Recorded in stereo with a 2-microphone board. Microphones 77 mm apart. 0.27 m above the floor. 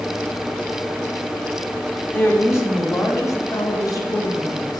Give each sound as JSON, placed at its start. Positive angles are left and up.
{"t": 2.1, "sound": "a woman speaking", "side_deg": 30, "distance_m": 1.3}